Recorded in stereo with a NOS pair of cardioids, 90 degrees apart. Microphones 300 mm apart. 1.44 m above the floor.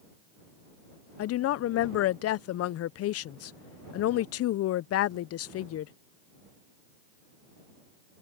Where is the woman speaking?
60° left.